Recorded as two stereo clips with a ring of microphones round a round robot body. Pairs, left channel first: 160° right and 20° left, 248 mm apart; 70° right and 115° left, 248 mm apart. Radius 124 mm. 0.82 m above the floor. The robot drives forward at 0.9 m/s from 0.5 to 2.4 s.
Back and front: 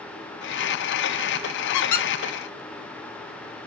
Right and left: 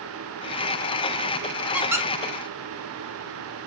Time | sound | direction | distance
1.7 | a squeak | 165° right | 0.6 m